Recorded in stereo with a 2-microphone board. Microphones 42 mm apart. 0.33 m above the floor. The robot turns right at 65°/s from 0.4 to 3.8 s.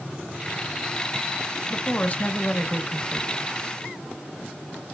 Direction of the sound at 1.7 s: 70° left.